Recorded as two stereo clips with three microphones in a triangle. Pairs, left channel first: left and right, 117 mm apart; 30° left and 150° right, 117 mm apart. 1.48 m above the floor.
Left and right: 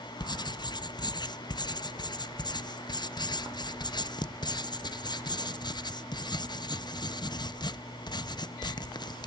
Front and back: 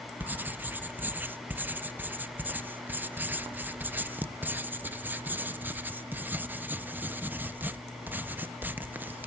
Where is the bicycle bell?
No bicycle bell in this recording.